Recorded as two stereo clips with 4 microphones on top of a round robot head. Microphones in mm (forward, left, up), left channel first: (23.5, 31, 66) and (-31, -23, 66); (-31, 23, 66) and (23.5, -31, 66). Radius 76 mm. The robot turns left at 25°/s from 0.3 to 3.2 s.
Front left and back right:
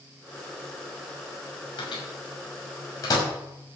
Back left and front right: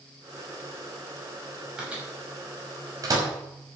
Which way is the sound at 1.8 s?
35° left.